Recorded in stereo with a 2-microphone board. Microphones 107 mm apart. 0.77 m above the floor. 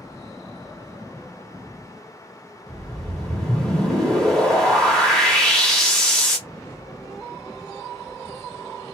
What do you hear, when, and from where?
2.7 s a whoosh: 5° left (ahead or behind), 1.1 m